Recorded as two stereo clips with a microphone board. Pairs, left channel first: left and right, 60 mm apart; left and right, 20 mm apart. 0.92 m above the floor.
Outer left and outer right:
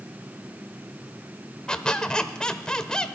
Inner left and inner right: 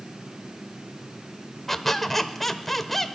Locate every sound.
1.7 s a squeak: 10° left (ahead or behind), 0.9 m